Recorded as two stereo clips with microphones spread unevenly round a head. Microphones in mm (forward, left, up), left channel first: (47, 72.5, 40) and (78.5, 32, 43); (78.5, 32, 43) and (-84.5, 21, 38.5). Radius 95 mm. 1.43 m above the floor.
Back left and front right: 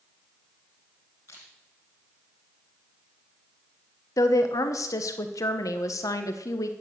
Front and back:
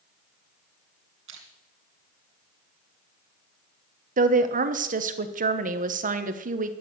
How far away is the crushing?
About 3 m.